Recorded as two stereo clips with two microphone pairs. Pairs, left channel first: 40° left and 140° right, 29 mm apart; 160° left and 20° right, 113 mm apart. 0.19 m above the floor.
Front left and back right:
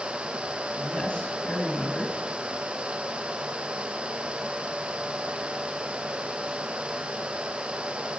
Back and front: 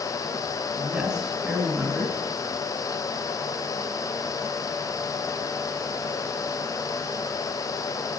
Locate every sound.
0.8 s a man speaking: 60° left, 2.5 m